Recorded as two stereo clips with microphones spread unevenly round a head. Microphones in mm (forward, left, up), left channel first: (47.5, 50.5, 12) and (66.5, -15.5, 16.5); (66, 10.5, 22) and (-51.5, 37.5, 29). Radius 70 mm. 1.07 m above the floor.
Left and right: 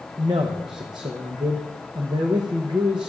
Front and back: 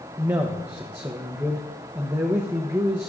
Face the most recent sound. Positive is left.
turn(degrees=-120)